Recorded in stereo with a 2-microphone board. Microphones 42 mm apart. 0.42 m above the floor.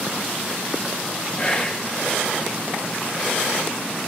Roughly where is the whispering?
Left.